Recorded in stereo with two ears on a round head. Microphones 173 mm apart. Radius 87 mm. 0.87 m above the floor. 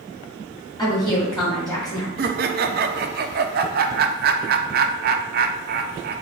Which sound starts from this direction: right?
Laughter, at 2.2 s.